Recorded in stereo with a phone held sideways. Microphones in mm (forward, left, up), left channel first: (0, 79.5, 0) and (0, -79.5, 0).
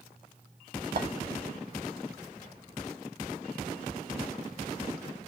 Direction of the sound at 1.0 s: 70° right (ahead or behind).